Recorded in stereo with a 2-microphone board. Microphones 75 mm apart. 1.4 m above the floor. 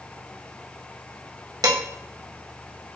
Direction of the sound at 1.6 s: 60° right (ahead or behind).